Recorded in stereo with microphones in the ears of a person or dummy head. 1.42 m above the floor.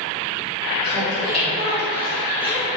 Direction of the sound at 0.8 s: 40° left (ahead or behind).